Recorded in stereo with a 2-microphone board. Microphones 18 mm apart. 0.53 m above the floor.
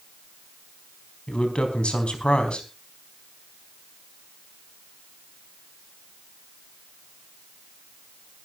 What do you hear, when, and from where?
1.3 s a man speaking: 75° left (ahead or behind), 4 m